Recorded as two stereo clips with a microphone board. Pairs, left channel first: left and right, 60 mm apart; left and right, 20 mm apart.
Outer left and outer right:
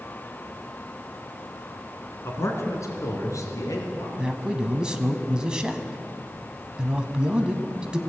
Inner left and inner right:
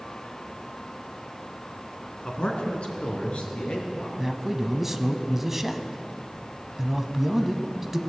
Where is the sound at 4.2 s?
15° right (ahead or behind), 1.1 m.